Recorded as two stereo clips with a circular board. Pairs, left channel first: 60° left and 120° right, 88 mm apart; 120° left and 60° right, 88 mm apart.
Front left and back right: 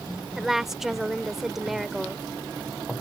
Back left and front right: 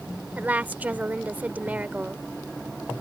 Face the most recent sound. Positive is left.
turn(degrees=-40)